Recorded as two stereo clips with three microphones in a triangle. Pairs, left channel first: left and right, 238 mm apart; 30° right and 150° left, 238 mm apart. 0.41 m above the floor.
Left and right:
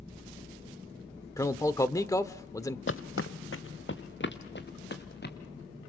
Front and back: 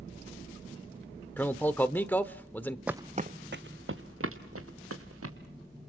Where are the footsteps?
65° left, 0.7 m; by 5.3 s 135° left, 3.5 m.